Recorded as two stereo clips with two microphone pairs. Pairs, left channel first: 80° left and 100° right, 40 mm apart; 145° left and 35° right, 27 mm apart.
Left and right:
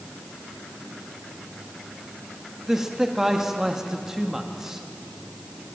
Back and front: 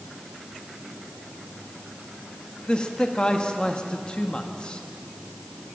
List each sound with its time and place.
2.7 s a man speaking: straight behind, 1.4 m